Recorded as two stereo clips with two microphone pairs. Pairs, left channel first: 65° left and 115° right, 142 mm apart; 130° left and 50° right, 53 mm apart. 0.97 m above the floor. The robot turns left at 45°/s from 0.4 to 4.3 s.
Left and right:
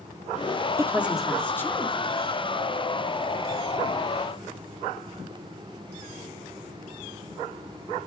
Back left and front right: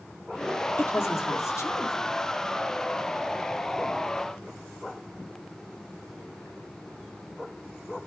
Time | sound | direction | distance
0.8 | a woman speaking | 175° left | 2.5 m